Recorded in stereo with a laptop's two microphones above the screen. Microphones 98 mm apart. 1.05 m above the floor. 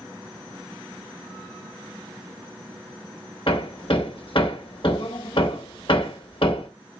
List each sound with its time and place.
3.5 s hammering: 60° left (ahead or behind), 1.1 m